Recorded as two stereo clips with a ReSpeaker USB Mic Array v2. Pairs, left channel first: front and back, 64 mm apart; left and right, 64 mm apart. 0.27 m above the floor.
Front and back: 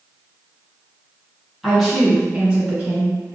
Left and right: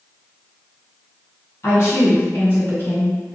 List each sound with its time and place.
1.6 s a woman speaking: 90° left, 2.0 m; by 3.4 s 145° left, 1.5 m